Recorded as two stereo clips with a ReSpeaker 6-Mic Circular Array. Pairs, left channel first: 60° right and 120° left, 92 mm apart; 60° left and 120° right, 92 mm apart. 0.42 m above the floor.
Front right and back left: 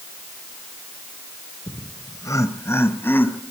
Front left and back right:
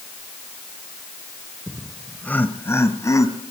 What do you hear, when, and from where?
1.7 s laughter: 40° right, 1.2 m; by 3.4 s 10° left, 3 m